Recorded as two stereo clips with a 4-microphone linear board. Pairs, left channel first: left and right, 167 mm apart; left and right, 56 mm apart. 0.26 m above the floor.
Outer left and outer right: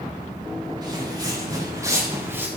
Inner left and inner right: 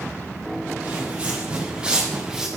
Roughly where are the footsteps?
Right.